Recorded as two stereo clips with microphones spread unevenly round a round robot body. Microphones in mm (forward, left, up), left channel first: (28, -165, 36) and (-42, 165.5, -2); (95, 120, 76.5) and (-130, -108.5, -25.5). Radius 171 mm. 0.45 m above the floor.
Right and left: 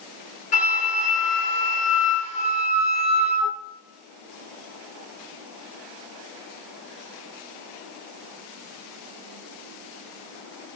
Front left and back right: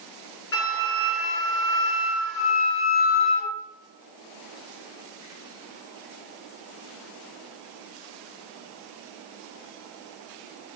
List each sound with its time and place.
0.5 s a flute: 10° right, 3.5 m